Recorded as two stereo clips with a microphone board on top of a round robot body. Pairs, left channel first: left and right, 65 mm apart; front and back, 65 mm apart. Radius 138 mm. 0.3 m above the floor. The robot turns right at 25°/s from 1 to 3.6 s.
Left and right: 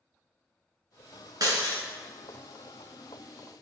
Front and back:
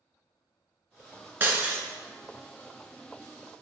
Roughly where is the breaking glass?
Behind right.